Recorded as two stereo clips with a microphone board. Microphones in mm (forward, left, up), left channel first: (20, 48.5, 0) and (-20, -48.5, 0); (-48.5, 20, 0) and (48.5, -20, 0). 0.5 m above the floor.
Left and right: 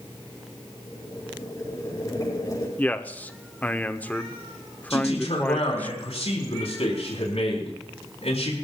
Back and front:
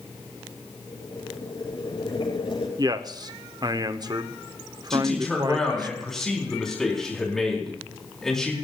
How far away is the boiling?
About 6.5 m.